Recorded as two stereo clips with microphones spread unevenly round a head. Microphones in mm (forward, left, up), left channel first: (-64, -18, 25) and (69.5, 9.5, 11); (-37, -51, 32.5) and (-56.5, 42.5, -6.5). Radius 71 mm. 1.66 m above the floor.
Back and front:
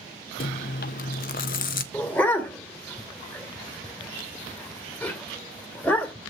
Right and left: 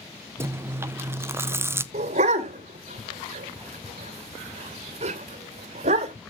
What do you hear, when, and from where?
0.4 s chewing: 175° left, 1.0 m
1.9 s a dog barking: 115° left, 2.5 m